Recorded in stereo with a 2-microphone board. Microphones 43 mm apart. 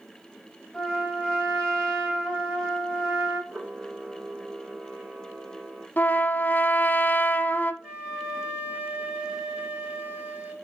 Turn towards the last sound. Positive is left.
turn(degrees=-20)  # may be behind; listen again after turning